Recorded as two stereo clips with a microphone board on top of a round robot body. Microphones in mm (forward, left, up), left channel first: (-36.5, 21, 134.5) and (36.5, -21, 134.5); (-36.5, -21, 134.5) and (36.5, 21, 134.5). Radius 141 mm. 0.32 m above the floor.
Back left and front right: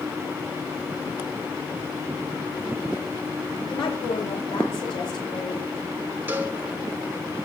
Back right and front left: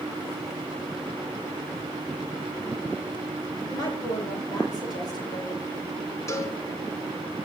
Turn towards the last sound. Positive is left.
turn(degrees=-95)